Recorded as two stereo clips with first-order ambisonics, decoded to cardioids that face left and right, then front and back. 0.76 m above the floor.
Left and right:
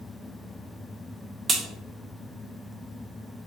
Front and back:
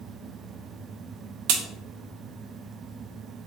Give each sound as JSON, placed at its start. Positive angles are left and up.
{"t": 1.5, "sound": "a crack", "azimuth_deg": -165, "distance_m": 0.6}